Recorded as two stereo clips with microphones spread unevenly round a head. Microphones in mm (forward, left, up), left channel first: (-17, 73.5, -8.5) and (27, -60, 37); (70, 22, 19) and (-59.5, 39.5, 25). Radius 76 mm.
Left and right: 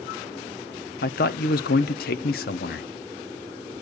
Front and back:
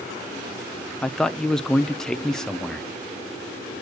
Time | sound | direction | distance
1.0 | a man speaking | 80° left | 0.6 m